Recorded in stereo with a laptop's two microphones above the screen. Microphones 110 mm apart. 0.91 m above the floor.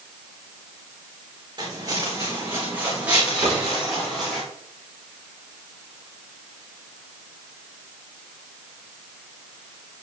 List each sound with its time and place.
1.6 s footsteps: 40° right (ahead or behind), 3.5 m; by 4.4 s 5° left (ahead or behind), 5 m
3.4 s a cupboard door: 30° right (ahead or behind), 3.5 m